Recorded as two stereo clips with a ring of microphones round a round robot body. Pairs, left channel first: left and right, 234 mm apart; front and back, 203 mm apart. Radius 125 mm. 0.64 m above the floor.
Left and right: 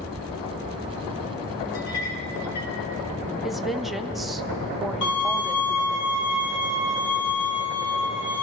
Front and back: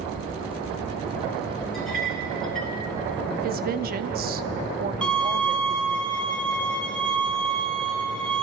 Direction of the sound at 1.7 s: 90° left.